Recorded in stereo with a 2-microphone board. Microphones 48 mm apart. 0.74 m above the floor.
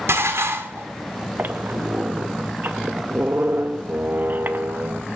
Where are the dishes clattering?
70° right (ahead or behind), 1.2 m.